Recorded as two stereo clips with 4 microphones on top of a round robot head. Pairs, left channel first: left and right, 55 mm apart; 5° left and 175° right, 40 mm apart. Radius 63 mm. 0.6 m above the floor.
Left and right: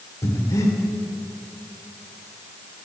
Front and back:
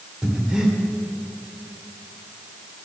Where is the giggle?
I don't hear a giggle.